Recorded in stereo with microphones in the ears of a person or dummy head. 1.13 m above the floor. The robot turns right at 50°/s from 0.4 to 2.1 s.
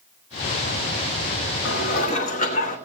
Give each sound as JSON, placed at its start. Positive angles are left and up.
{"t": 1.6, "sound": "dishes clattering", "side_deg": 65, "distance_m": 1.5}